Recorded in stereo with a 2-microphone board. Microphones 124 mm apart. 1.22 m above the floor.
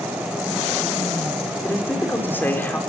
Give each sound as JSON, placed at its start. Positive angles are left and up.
{"t": 1.6, "sound": "a man speaking", "side_deg": 15, "distance_m": 4.5}